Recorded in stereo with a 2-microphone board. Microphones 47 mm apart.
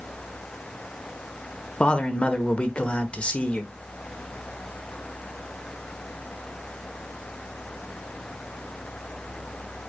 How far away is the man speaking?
About 1.3 m.